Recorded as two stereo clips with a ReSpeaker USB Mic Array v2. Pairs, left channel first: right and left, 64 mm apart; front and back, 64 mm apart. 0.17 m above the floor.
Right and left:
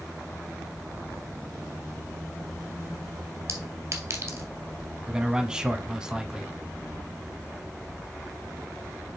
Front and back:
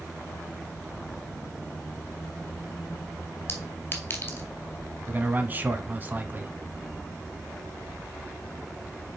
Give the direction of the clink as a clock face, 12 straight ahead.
10 o'clock.